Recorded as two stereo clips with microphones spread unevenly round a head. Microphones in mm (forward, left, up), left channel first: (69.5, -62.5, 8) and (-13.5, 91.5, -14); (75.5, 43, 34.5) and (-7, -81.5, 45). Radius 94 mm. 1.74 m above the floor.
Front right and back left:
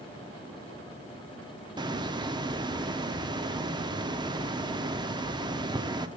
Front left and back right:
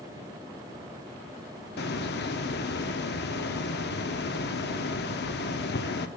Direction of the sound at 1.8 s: 50° left.